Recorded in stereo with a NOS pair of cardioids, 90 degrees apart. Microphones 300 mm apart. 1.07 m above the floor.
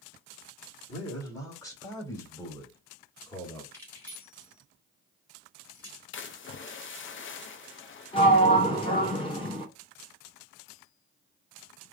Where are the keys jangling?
5° left, 2.5 m.